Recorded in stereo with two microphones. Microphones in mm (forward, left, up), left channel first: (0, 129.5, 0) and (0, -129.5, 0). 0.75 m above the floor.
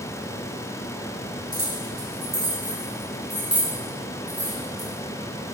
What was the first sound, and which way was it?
Keys jangling, 60° right (ahead or behind).